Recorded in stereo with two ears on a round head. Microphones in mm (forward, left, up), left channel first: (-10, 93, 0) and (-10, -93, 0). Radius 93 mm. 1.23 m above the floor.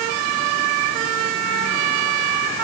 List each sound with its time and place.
Only background noise.